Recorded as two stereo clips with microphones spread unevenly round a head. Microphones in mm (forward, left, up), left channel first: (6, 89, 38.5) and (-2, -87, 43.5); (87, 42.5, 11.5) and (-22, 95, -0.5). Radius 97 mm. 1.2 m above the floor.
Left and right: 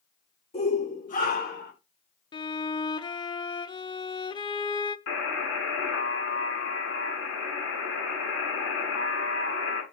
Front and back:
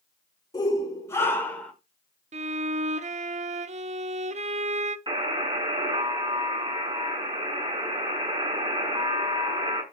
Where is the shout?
30° left, 4.5 m; by 1.7 s 55° left, 4.5 m.